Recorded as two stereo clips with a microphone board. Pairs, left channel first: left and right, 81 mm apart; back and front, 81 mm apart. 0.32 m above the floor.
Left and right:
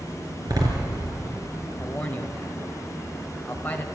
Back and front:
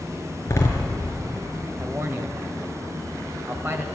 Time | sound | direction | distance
0.5 | a door slam | 130° right | 4.5 m
1.8 | a man speaking | 35° left | 1.8 m